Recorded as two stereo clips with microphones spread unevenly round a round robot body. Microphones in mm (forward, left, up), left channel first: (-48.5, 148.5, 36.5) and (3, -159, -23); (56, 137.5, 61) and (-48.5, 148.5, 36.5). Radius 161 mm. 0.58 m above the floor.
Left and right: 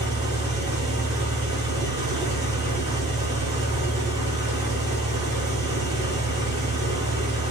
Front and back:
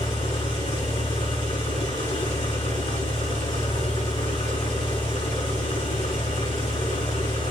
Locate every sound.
0.0 s an engine running: straight ahead, 6.5 m